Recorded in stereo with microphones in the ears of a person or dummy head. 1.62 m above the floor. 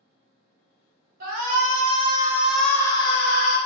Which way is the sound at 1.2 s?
45° right (ahead or behind).